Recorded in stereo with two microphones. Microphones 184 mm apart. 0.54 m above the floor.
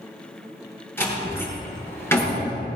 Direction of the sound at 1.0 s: 10° left (ahead or behind).